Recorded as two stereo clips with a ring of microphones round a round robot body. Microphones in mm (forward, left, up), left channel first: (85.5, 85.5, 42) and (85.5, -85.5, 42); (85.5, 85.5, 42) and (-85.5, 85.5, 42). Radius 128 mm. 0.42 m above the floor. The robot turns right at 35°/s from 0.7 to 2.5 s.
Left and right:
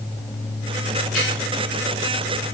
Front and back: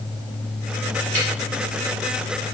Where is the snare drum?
Straight behind, 3.5 m; by 1.3 s 175° right, 3.5 m.